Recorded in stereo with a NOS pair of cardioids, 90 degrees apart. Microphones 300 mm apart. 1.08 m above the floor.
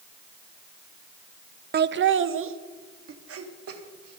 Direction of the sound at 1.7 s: 35° right.